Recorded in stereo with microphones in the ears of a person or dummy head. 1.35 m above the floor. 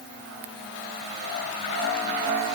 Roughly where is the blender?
I don't hear a blender.